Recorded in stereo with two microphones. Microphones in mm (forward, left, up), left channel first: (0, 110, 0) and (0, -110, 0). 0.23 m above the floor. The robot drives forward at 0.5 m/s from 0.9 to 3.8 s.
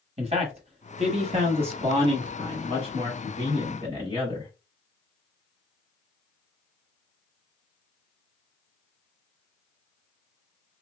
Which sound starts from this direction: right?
A man speaking, at 0.2 s.